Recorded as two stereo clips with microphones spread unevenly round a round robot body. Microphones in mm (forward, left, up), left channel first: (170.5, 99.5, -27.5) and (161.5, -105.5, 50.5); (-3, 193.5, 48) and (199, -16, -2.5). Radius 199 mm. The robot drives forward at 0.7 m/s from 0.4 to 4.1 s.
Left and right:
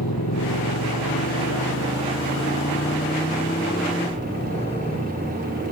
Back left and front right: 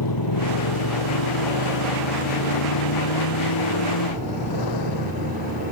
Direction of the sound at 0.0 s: 125° left.